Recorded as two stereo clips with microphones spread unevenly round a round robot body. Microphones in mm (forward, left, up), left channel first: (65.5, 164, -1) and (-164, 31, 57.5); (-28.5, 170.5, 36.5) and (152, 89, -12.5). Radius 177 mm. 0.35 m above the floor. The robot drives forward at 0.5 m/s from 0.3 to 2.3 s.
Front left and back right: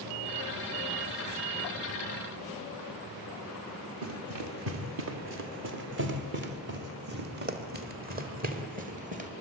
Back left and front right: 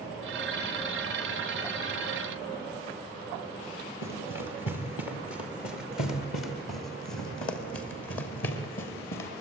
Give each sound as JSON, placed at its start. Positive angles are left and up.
{"t": 4.0, "sound": "running footsteps", "azimuth_deg": 180, "distance_m": 5.0}